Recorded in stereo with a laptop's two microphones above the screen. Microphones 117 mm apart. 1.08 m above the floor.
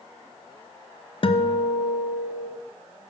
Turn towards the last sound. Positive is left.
turn(degrees=50)  # may be behind; listen again after turning